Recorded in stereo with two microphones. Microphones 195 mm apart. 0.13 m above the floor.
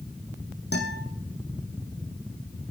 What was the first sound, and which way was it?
A guitar, 60° left (ahead or behind).